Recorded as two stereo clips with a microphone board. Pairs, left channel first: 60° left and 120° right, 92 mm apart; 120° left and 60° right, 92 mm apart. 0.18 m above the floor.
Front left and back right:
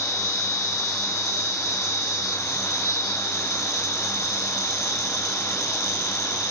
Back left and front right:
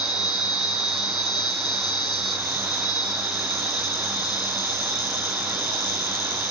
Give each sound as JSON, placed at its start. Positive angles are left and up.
{"t": 0.0, "sound": "an insect", "azimuth_deg": 95, "distance_m": 1.8}